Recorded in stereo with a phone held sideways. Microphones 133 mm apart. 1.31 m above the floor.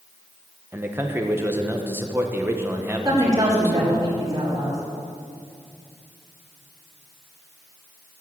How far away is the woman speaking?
About 4.5 m.